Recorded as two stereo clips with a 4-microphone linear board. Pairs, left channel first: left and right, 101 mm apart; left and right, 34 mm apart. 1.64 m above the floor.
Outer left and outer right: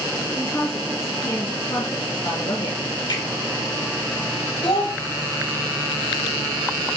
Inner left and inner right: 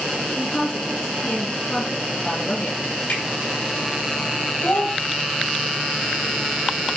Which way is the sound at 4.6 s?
70° left (ahead or behind).